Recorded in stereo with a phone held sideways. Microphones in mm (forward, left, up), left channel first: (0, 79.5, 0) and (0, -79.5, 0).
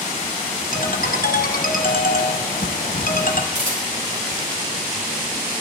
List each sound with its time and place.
0.7 s a ringtone: 65° left (ahead or behind), 0.8 m
3.5 s a camera shutter: 50° right (ahead or behind), 3.5 m